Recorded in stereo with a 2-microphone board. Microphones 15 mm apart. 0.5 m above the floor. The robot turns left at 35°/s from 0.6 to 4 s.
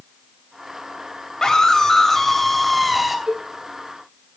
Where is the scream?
50° left, 3 m; by 3.2 s 10° right, 3 m.